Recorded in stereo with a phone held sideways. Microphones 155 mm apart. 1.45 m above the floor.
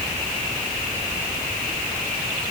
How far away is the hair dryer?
No hair dryer in this recording.